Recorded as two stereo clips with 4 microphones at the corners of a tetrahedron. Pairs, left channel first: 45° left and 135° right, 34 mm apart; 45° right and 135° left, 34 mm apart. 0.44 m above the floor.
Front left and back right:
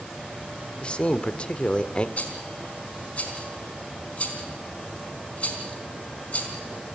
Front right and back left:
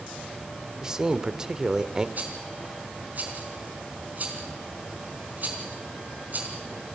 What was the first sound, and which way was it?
A man speaking, 75° left.